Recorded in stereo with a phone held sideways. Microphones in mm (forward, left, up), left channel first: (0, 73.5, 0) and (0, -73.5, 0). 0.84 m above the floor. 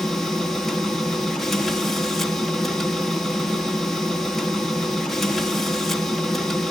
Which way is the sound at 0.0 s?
Centre (ahead or behind).